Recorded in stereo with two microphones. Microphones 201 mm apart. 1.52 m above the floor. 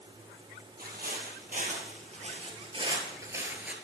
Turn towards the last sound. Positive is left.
turn(degrees=-5)  # may be behind; listen again after turning